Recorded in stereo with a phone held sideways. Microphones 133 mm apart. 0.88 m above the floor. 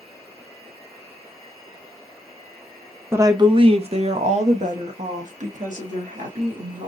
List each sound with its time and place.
3.1 s a woman speaking: 20° right (ahead or behind), 0.6 m; by 6.9 s 75° right (ahead or behind), 2.5 m